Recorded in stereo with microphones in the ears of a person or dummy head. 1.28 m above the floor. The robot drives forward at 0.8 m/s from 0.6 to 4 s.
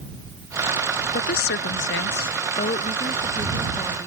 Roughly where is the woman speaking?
Left.